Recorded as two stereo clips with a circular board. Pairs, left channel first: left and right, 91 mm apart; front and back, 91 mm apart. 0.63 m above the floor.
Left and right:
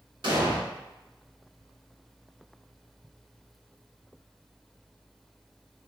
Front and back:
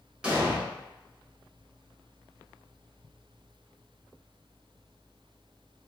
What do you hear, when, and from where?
0.2 s an explosion: 105° right, 1.1 m